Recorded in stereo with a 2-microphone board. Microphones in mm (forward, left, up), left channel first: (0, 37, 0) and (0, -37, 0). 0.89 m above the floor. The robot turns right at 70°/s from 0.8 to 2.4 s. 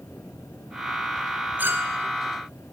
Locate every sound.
1.6 s a clink: 25° right (ahead or behind), 3.5 m; by 2.0 s 50° right (ahead or behind), 3.5 m